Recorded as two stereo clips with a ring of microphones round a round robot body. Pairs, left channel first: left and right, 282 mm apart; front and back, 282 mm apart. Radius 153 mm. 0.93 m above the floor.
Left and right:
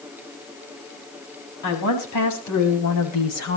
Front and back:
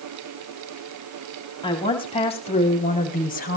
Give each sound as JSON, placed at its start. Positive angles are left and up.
{"t": 1.6, "sound": "a woman speaking", "azimuth_deg": 75, "distance_m": 7.5}